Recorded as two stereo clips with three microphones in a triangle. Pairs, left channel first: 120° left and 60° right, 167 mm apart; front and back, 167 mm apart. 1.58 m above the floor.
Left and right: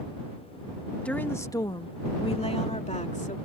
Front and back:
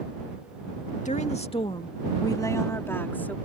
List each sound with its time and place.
1.1 s a woman speaking: 40° left; by 3.4 s 80° left